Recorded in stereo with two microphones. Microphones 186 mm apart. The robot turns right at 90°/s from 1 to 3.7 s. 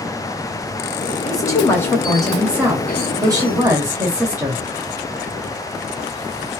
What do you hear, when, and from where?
1.2 s a woman speaking: 20° left (ahead or behind), 1.2 m; by 4.6 s 15° right (ahead or behind), 1.2 m